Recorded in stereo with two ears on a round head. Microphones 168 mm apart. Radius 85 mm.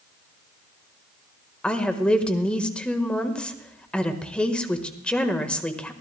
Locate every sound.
1.6 s a woman speaking: 5° left (ahead or behind), 1.3 m